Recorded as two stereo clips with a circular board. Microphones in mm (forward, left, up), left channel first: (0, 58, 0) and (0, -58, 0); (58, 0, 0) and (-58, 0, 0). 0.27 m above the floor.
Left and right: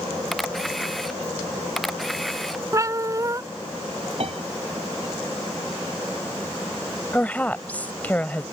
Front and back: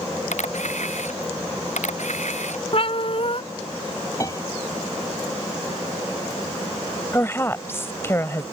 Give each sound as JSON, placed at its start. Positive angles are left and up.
{"t": 0.3, "sound": "a camera shutter", "azimuth_deg": 0}
{"t": 2.7, "sound": "a cat meowing", "azimuth_deg": -30}
{"t": 4.2, "sound": "a piano", "azimuth_deg": -60}
{"t": 7.1, "sound": "a woman speaking", "azimuth_deg": 35}